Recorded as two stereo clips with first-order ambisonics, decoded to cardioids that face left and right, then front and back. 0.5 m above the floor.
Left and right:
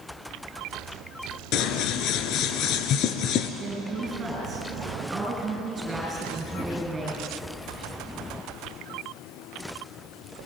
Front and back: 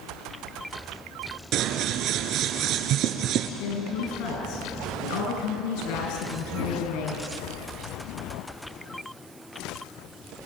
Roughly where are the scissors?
Behind left.